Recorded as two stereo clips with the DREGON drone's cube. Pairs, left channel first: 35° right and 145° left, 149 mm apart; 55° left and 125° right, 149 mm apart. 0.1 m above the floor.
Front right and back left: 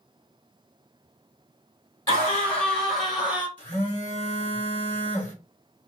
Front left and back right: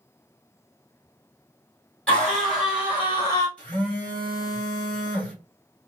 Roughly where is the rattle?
No rattle in this recording.